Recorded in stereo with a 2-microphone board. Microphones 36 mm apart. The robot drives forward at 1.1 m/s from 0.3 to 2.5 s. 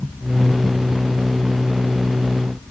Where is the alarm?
I don't hear an alarm.